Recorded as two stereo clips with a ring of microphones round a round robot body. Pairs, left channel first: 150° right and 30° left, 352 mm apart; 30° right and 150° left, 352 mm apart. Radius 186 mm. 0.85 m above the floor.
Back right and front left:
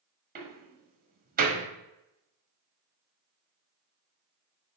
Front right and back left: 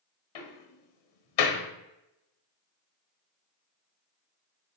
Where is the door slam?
35° right, 1.6 m.